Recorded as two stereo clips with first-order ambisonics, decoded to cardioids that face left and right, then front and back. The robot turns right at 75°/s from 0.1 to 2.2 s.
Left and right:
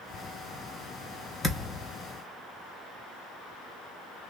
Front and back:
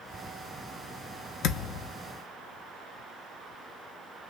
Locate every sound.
1.4 s a thud: 10° left, 0.8 m; by 1.9 s 40° left, 0.8 m